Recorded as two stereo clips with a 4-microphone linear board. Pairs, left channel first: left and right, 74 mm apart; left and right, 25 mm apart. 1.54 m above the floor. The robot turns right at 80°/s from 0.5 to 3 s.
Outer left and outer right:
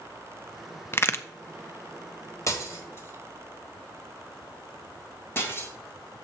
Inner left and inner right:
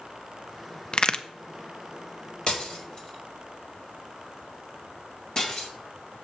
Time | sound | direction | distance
0.9 | a crack | 35° left (ahead or behind) | 0.5 m
2.5 | breaking glass | 45° left (ahead or behind) | 1.7 m